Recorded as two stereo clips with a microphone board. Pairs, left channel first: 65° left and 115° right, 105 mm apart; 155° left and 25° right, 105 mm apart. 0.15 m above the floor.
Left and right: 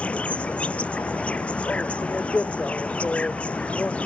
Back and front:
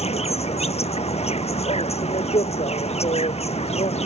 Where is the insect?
145° left.